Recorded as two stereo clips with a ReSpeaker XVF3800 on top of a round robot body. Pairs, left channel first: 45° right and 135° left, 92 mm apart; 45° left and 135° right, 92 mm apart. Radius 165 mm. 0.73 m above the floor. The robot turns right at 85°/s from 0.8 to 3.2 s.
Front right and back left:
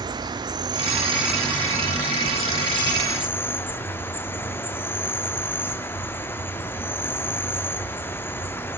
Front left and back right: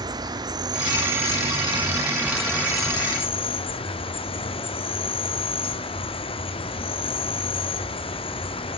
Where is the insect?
Straight behind, 0.9 m; by 8.8 s 25° left, 0.9 m.